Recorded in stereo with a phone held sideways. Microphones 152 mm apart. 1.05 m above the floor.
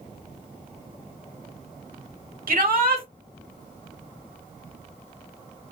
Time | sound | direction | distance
2.5 | a shout | 75° right (ahead or behind) | 2 m